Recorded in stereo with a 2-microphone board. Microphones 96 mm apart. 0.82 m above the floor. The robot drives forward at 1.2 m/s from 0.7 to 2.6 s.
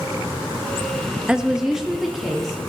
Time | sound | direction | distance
1.3 | a woman speaking | 10° right (ahead or behind) | 0.5 m